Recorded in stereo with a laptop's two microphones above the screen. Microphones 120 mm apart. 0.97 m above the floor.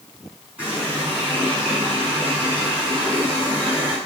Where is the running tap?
10° right (ahead or behind), 6.5 m.